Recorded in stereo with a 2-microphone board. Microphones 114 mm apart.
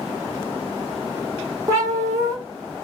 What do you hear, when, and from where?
1.7 s a cat meowing: 30° right (ahead or behind), 1.0 m